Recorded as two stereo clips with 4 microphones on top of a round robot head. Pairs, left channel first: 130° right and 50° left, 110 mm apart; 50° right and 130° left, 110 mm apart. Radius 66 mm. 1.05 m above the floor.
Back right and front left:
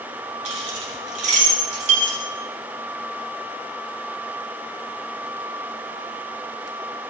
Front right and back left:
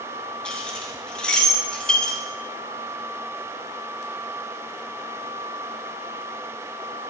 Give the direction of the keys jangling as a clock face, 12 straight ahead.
11 o'clock.